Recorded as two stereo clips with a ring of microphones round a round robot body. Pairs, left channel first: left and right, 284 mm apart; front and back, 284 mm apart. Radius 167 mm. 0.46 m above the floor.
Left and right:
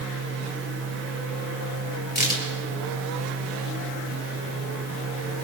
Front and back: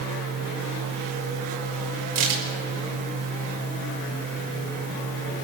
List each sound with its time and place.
2.1 s a crack: 150° left, 5.5 m